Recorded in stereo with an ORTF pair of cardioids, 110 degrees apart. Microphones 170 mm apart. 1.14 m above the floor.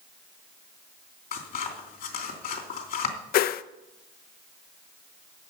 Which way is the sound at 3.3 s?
60° left.